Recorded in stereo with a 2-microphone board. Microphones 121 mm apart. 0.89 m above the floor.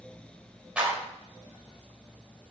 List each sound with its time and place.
0.8 s a clap: 10° right (ahead or behind), 3.5 m